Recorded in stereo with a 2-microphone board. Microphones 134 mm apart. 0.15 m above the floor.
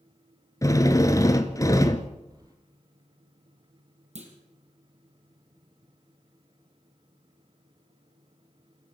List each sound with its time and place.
0.6 s a drill: 25° left (ahead or behind), 1.5 m
2.3 s keys jangling: 30° right (ahead or behind), 3.5 m
4.2 s a clunk: 55° right (ahead or behind), 4 m